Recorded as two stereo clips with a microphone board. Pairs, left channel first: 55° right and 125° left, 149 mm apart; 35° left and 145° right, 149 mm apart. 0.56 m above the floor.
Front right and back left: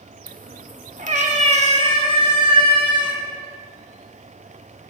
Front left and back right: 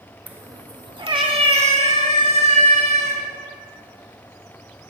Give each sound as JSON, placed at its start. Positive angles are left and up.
{"t": 0.3, "sound": "a cat meowing", "azimuth_deg": 135, "distance_m": 0.6}